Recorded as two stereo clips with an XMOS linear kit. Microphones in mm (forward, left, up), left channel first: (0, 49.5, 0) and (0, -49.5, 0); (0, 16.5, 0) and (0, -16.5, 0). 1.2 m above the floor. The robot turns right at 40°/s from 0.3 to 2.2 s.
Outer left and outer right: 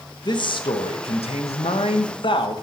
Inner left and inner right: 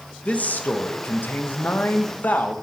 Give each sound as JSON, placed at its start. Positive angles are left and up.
{"t": 0.2, "sound": "a man speaking", "azimuth_deg": 45, "distance_m": 0.9}